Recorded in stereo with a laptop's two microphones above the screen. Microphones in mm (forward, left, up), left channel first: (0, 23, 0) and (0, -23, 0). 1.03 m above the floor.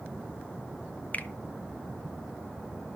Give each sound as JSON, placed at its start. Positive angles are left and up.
{"t": 1.1, "sound": "a finger snap", "side_deg": 35, "distance_m": 0.5}